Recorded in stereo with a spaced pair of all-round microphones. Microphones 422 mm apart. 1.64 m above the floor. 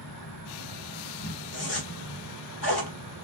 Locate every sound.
0.0 s an insect: 60° left (ahead or behind), 2 m
1.5 s a zipper: 65° left (ahead or behind), 2.5 m